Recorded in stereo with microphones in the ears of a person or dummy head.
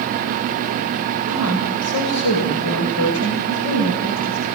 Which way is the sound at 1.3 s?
85° left.